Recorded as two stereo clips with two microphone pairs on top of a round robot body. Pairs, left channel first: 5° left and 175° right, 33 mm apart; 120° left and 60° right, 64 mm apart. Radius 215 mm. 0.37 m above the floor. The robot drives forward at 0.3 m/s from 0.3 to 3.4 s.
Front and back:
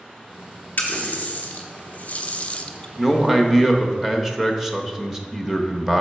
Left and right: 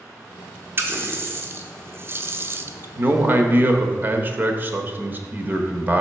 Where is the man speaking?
90° right, 1.1 m; by 6.0 s 100° right, 1.1 m.